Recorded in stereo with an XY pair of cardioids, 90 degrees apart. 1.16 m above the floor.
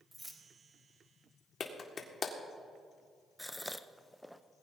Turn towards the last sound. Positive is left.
turn(degrees=0)